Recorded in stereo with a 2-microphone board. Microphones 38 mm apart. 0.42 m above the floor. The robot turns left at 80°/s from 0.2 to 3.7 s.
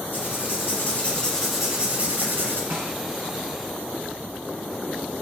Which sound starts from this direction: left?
Writing, at 0.1 s.